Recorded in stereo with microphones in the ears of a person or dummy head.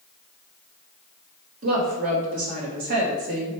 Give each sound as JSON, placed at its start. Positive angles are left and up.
{"t": 1.6, "sound": "a woman speaking", "side_deg": -55, "distance_m": 1.2}